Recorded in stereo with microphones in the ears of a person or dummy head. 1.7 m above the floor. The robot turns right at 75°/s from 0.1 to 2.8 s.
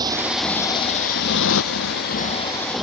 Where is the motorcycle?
20° right (ahead or behind); by 2.8 s centre (ahead or behind).